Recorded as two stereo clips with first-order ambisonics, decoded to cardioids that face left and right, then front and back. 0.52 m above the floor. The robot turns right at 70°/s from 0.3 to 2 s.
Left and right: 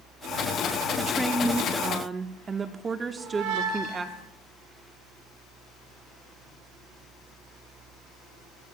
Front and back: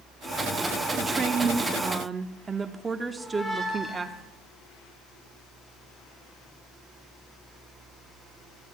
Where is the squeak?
80° right, 5 m.